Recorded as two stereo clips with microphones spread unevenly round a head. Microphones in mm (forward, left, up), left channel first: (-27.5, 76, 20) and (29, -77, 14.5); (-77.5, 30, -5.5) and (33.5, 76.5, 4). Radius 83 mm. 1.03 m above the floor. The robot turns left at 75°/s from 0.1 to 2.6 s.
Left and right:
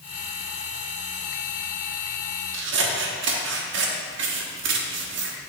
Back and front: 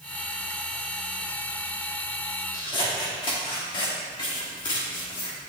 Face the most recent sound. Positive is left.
turn(degrees=-90)